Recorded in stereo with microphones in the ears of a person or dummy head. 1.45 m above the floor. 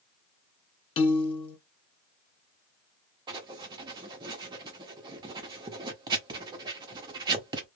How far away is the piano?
About 0.6 m.